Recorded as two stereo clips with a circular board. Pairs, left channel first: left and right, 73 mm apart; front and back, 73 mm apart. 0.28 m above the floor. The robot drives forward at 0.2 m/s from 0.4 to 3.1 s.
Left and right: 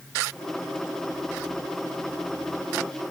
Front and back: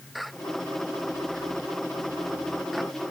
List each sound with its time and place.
Only background noise.